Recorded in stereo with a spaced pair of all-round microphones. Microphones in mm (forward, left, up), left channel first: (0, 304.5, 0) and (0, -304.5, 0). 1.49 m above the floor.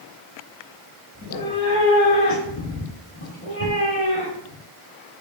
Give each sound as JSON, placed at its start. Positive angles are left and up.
{"t": 1.1, "sound": "a cat meowing", "side_deg": 25, "distance_m": 0.9}